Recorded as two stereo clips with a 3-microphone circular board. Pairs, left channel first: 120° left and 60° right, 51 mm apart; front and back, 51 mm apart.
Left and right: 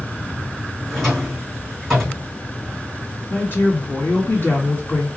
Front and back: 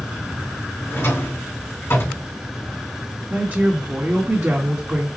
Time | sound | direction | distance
0.9 | a drawer | 40° left | 3 m
3.3 | a woman speaking | 145° left | 2 m